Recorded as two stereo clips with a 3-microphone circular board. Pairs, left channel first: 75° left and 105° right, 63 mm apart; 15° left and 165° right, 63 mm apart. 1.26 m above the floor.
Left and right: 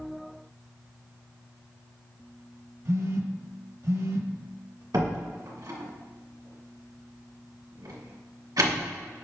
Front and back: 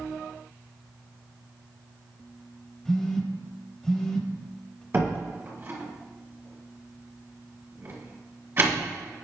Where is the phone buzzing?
65° right, 1.1 m.